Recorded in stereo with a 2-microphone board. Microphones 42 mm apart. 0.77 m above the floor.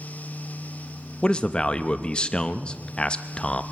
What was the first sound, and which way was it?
A man speaking, 25° left (ahead or behind).